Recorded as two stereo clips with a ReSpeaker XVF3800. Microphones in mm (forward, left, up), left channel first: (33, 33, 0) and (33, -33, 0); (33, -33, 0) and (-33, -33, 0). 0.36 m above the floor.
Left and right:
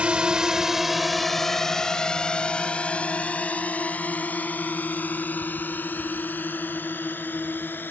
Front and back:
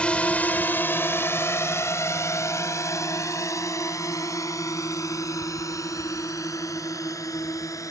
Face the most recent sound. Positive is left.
turn(degrees=30)